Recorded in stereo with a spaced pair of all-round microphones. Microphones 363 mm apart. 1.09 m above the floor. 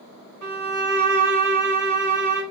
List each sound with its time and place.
0.4 s a violin: 55° right (ahead or behind), 1.3 m